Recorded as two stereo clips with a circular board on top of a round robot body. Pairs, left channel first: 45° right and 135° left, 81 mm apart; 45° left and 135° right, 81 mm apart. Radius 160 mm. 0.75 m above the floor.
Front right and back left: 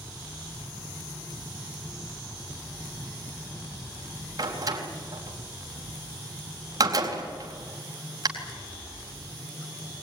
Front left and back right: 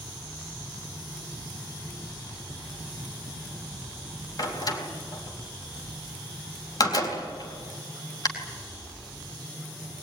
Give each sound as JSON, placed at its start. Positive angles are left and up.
{"t": 4.4, "sound": "a door slam", "azimuth_deg": 90, "distance_m": 4.0}